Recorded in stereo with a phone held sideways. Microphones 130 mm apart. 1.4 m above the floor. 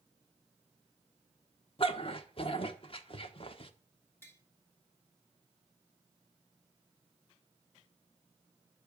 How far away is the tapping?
About 3 m.